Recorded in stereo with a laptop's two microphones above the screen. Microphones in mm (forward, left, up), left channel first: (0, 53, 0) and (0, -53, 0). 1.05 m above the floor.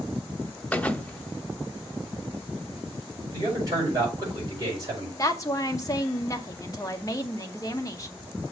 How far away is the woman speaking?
About 0.9 m.